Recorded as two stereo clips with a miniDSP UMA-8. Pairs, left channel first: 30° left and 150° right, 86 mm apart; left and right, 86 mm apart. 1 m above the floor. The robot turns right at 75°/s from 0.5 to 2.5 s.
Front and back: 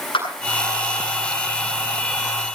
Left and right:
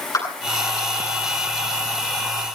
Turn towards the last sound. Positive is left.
turn(degrees=-165)